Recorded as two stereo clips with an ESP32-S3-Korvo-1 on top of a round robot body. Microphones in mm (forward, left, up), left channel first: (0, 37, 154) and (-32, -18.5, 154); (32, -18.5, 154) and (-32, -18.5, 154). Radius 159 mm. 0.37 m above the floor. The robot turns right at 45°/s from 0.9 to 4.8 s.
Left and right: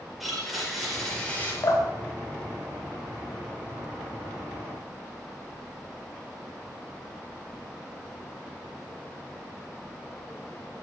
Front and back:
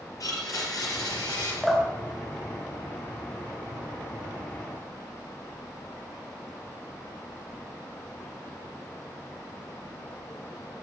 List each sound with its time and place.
0.2 s a blender: 30° right, 5.5 m; by 1.5 s 5° right, 5.5 m
1.6 s dripping: 90° left, 3 m; by 3.5 s 170° left, 3 m